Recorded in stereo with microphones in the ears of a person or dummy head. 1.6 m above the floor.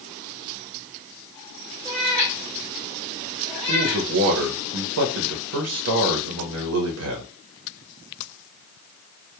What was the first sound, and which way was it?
A cat meowing, 5° right (ahead or behind).